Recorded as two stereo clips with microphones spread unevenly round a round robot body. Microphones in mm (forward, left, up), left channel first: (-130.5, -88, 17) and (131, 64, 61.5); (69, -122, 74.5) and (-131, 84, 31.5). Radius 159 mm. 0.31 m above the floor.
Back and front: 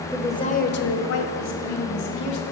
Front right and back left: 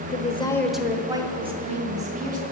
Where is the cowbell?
No cowbell in this recording.